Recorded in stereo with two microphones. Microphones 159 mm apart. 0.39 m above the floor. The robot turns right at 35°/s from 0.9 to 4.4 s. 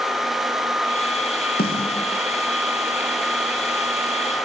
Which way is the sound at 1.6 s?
70° left (ahead or behind).